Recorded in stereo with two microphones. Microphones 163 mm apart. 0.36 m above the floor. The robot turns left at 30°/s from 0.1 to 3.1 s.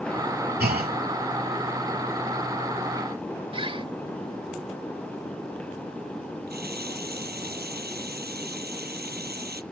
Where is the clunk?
75° right (ahead or behind); by 1.0 s 65° right (ahead or behind).